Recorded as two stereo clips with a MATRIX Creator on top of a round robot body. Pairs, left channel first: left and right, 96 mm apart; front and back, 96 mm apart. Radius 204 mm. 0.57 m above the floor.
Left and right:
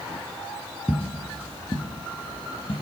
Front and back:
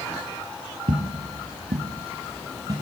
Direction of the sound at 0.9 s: 165° right.